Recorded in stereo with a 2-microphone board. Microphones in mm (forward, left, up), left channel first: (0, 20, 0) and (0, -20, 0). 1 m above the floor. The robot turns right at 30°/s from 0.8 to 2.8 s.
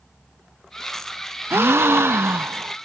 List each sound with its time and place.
1.5 s a gasp: 105° right, 0.5 m; by 2.8 s 65° right, 0.5 m